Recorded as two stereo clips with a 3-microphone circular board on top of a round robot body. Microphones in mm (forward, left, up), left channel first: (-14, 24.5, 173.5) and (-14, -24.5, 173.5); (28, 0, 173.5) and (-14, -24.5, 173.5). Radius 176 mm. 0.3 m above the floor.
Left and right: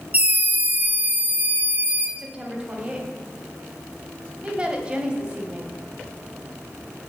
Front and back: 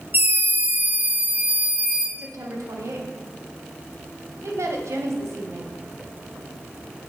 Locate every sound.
0.1 s a scream: 135° right, 1.8 m; by 2.1 s 95° right, 2.5 m
2.2 s a woman speaking: 160° right, 2.5 m